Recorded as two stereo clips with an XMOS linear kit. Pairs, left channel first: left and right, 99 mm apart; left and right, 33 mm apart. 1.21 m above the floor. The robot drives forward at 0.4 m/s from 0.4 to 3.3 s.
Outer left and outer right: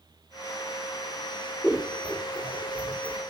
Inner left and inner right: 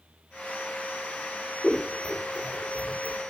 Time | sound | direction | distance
1.6 | scissors | 10° right (ahead or behind) | 0.8 m